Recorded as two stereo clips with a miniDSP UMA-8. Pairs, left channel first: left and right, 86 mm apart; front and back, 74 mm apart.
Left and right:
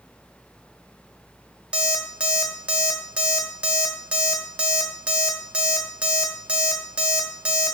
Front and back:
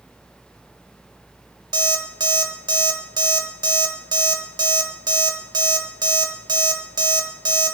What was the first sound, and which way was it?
An alarm clock, 165° right.